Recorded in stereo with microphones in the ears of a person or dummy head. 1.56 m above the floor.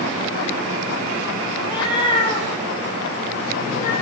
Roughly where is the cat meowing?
Left.